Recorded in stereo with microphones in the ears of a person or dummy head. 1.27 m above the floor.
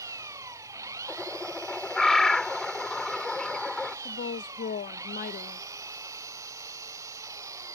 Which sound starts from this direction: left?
A woman speaking, at 4.0 s.